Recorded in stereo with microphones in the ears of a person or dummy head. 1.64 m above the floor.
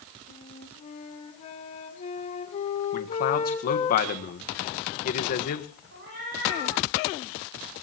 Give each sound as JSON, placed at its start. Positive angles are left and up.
{"t": 0.3, "sound": "a flute", "side_deg": 35, "distance_m": 3.5}
{"t": 2.9, "sound": "a man speaking", "side_deg": 50, "distance_m": 1.6}
{"t": 5.9, "sound": "a cat meowing", "side_deg": -55, "distance_m": 9.0}